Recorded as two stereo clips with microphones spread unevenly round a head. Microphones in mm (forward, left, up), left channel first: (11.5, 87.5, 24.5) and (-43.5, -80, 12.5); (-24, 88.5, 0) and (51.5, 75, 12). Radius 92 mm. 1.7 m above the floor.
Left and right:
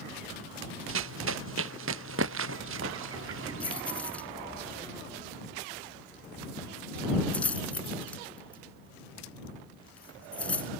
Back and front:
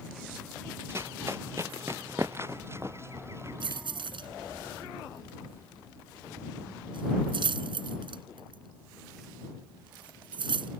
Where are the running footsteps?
85° right.